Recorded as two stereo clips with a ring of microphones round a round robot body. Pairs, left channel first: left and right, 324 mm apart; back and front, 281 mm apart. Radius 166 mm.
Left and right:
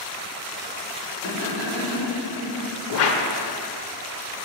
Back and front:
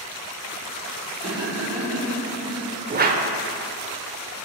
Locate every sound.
1.2 s laughter: 55° left, 2 m; by 2.6 s 65° left, 3.5 m
2.9 s a whoosh: 50° left, 0.5 m